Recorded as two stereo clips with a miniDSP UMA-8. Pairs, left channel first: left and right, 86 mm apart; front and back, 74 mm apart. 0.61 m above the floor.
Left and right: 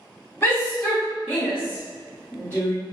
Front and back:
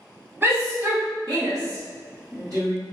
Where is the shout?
150° left, 0.9 m; by 2.7 s 145° right, 1.5 m.